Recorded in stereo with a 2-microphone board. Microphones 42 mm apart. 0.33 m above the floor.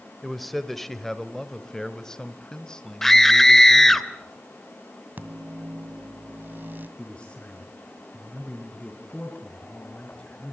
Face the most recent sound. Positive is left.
turn(degrees=25)  # may be behind; listen again after turning